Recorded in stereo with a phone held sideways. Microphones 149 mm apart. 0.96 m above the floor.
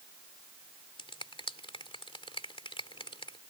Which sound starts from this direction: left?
A finger snap, at 1.0 s.